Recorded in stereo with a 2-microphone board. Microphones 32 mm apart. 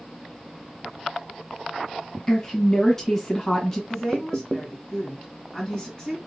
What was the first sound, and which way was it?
A woman speaking, 15° left (ahead or behind).